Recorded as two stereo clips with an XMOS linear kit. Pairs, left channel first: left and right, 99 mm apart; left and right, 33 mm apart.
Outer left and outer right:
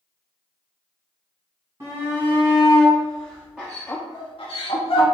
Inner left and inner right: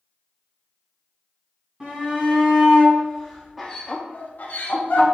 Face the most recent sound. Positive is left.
turn(degrees=65)  # may be behind; listen again after turning